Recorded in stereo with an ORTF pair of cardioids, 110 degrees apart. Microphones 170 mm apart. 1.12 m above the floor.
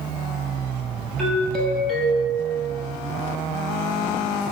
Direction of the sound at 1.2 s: Straight ahead.